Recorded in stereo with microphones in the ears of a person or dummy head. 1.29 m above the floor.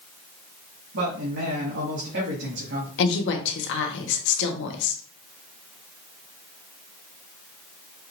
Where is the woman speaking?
65° left (ahead or behind), 1.2 m.